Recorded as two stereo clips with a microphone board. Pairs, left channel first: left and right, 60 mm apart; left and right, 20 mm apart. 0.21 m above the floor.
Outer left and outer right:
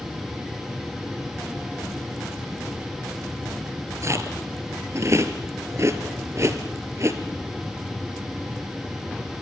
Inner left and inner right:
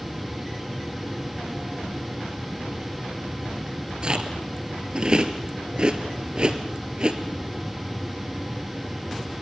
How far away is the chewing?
About 2 m.